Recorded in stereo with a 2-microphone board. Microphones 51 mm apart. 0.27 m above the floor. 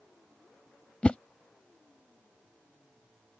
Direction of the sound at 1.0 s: 25° left (ahead or behind).